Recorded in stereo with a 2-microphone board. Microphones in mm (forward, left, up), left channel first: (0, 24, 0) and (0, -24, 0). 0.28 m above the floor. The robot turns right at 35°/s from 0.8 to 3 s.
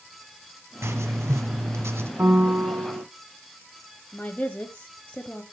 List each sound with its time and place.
0.8 s writing: 110° right, 1.1 m; by 2.1 s 65° right, 1.1 m
2.2 s a piano: 45° right (ahead or behind), 1.7 m; by 3.0 s 60° right (ahead or behind), 1.7 m
4.1 s a woman speaking: 25° left (ahead or behind), 1.2 m